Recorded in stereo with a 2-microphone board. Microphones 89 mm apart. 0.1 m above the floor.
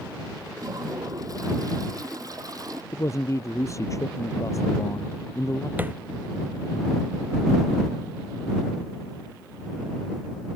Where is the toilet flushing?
45° right (ahead or behind).